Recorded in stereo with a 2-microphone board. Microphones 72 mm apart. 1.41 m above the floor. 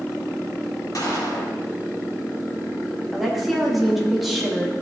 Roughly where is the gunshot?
Left.